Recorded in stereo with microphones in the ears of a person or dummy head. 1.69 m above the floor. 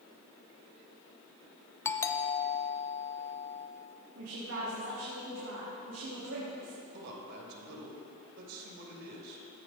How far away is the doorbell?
About 0.6 m.